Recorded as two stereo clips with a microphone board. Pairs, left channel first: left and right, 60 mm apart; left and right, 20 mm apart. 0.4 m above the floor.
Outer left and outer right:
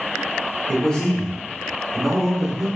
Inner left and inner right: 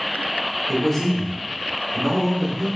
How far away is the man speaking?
About 1.4 m.